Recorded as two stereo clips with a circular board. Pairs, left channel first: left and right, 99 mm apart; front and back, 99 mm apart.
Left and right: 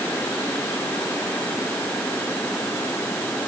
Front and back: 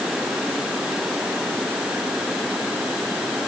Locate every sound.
Only background noise.